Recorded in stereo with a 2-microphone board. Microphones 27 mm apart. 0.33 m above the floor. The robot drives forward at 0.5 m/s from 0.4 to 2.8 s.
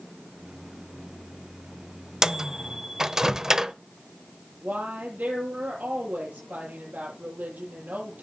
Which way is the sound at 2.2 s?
20° right (ahead or behind).